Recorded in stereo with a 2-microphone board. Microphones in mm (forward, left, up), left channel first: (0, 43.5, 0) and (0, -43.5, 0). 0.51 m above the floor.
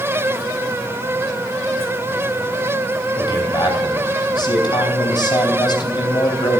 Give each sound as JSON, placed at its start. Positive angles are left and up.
{"t": 3.2, "sound": "a man speaking", "side_deg": 60, "distance_m": 3.0}